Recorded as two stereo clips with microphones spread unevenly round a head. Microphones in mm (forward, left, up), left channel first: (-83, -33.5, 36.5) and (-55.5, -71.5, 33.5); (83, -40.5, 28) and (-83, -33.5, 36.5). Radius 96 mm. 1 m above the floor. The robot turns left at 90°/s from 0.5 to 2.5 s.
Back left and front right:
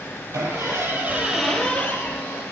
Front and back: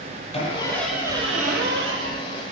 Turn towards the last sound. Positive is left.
turn(degrees=120)